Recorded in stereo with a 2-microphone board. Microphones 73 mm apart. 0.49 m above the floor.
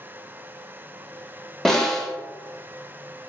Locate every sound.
1.6 s a snare drum: 5° left (ahead or behind), 0.7 m